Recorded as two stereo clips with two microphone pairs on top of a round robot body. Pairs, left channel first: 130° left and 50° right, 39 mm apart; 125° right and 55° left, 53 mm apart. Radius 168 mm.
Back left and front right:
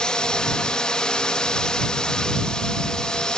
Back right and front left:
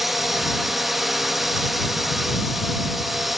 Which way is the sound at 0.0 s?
125° left.